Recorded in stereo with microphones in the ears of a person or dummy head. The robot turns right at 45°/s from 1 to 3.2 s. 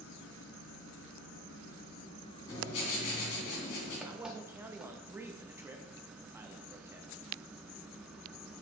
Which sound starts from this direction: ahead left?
Writing, at 2.5 s.